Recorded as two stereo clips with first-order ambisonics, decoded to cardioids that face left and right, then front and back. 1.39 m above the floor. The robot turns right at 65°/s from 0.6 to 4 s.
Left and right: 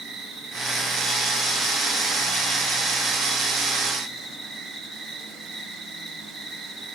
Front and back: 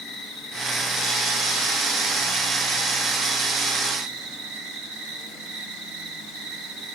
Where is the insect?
40° right, 2 m; by 7.0 s 175° right, 2 m.